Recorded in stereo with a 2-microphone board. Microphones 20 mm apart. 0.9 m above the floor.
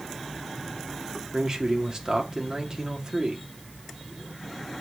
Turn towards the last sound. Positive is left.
turn(degrees=-35)  # may be behind; listen again after turning